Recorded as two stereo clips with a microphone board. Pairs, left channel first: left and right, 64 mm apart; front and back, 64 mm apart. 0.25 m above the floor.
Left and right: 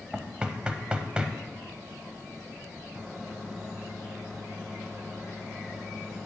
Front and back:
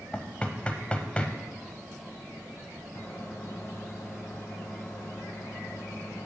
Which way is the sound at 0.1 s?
40° right.